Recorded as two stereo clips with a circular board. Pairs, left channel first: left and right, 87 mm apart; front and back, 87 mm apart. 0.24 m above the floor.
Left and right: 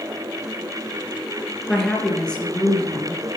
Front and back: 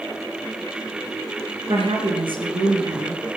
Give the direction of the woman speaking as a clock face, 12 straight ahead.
6 o'clock.